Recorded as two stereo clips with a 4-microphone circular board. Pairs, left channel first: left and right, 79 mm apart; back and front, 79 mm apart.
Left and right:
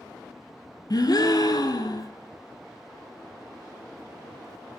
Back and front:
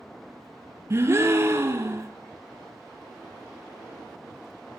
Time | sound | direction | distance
0.9 | a gasp | 55° left | 0.7 m